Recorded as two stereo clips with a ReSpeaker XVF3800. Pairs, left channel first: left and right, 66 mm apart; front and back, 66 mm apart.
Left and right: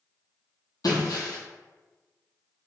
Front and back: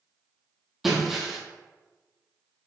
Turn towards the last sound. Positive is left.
turn(degrees=95)